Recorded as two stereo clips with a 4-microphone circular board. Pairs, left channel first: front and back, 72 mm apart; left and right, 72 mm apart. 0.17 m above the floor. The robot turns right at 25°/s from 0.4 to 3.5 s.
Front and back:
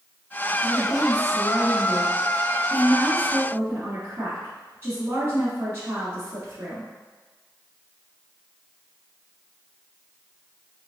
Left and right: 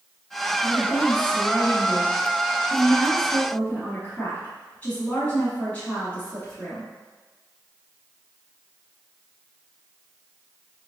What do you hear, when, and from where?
0.6 s a woman speaking: 75° left, 1.3 m; by 6.9 s 145° left, 1.3 m